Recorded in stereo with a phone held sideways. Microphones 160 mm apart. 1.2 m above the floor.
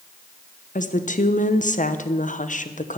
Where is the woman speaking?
55° left (ahead or behind), 0.9 m.